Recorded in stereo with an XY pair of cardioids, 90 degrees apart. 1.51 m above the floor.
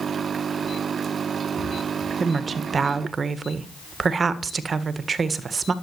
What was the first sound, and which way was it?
A woman speaking, 45° right.